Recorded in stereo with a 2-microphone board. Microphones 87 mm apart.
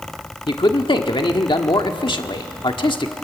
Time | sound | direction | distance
0.5 | a man speaking | 65° left (ahead or behind) | 1.4 m